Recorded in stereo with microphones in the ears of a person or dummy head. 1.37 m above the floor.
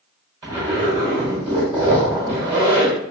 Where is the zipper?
20° right (ahead or behind), 1.4 m.